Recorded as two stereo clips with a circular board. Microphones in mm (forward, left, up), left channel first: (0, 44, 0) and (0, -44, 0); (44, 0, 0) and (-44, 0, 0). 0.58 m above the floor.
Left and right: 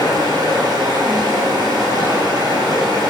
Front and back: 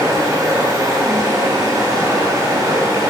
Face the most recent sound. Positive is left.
turn(degrees=-135)